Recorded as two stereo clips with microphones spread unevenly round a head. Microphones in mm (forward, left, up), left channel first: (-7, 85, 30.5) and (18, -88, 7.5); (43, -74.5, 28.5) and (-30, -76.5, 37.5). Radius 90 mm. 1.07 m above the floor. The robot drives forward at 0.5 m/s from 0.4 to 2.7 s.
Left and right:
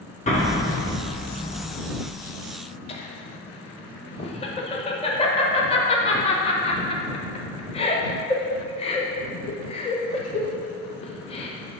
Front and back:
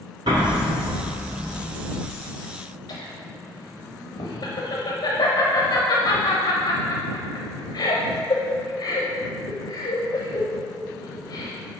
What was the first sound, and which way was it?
An explosion, 145° left.